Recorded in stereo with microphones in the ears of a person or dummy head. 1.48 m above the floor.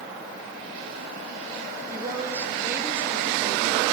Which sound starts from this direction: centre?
A woman speaking, at 1.9 s.